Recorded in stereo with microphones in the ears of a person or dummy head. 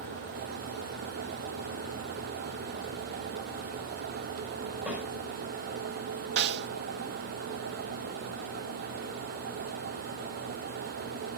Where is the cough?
No cough in this recording.